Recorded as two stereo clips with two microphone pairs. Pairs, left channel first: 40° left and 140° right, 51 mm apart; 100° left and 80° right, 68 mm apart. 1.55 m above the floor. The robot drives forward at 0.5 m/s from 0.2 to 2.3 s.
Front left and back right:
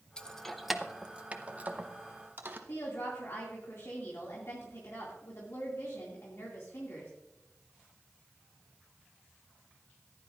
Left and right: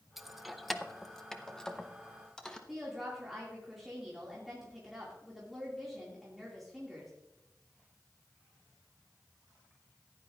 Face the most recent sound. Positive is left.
turn(degrees=10)